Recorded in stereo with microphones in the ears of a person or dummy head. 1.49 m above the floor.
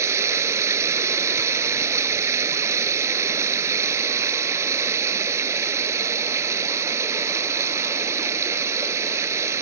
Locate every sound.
0.0 s running water: 15° right (ahead or behind)